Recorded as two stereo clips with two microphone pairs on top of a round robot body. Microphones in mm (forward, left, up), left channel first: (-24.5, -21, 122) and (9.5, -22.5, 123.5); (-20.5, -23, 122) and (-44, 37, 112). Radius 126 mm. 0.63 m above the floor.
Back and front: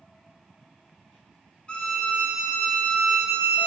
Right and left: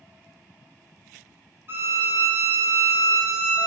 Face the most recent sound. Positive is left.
turn(degrees=135)